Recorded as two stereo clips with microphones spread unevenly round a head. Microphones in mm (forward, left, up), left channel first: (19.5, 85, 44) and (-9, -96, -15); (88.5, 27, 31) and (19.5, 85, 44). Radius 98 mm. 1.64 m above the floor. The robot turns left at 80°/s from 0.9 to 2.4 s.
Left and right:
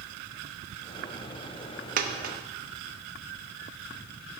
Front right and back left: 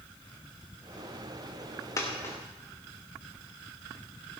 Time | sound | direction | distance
2.0 | a dropped coin | 75° right | 1.0 m